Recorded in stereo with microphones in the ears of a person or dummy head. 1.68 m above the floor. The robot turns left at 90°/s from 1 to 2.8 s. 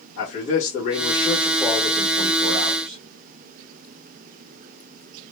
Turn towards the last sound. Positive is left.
turn(degrees=-115)